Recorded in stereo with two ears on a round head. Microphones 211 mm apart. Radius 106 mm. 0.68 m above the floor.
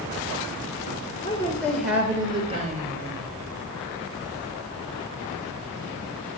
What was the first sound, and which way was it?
A woman speaking, 20° left (ahead or behind).